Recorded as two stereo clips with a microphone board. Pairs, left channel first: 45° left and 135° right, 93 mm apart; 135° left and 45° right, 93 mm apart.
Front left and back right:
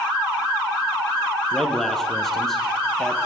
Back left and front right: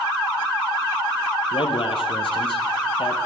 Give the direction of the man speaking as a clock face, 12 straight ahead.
8 o'clock.